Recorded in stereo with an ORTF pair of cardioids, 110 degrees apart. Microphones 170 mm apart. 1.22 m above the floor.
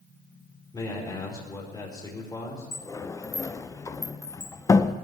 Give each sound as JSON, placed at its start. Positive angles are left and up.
{"t": 0.7, "sound": "a man speaking", "azimuth_deg": 25, "distance_m": 4.5}
{"t": 2.7, "sound": "a sliding door", "azimuth_deg": 20, "distance_m": 0.6}